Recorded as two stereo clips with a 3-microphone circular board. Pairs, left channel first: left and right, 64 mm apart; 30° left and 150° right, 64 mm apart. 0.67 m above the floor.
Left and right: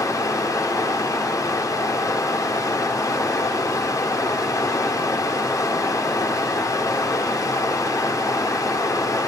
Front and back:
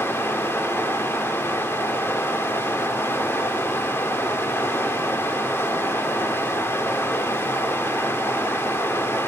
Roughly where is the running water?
Left.